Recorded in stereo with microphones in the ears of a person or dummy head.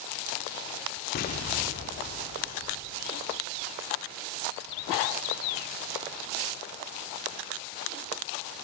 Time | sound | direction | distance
1.1 | an explosion | 45° left (ahead or behind) | 1.8 m